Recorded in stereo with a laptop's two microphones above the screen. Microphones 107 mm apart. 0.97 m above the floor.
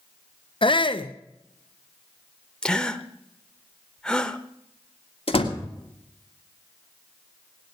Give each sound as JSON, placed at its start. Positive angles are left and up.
{"t": 0.6, "sound": "a shout", "side_deg": 55, "distance_m": 0.5}
{"t": 2.6, "sound": "a gasp", "side_deg": 10, "distance_m": 0.7}
{"t": 5.3, "sound": "a door slam", "side_deg": 60, "distance_m": 2.0}